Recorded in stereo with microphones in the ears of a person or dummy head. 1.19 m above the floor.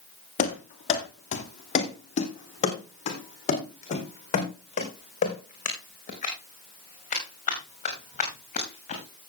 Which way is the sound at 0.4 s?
40° left (ahead or behind).